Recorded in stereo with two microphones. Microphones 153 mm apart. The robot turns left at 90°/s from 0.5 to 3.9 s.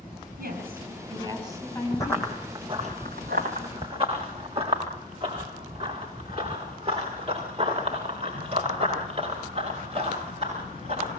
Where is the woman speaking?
90° right, 6.5 m; by 2.3 s 110° left, 6.5 m.